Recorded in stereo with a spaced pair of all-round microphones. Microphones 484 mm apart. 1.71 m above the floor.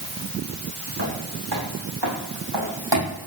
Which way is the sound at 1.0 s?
60° right (ahead or behind).